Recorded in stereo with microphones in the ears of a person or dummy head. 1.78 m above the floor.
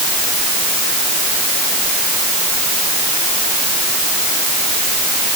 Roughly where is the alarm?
No alarm in this recording.